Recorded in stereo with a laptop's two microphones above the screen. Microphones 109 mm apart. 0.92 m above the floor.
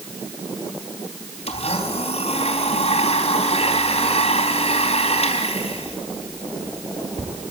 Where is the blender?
70° left (ahead or behind), 4 m.